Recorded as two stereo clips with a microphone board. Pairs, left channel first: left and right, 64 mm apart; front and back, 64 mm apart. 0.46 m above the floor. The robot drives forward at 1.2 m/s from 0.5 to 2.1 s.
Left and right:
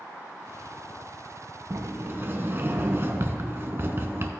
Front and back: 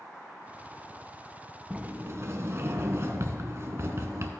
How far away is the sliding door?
About 0.6 m.